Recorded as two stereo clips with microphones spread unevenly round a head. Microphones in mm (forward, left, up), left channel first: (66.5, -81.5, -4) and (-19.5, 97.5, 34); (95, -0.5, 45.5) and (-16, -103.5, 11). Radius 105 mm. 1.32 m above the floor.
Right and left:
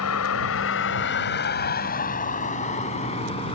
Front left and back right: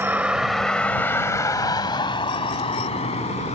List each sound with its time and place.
0.0 s a vehicle: 60° right; by 3.6 s straight ahead